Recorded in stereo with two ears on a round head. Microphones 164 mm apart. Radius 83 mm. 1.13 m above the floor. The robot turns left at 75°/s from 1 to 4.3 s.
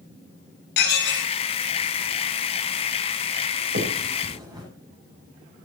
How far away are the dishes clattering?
About 6.5 m.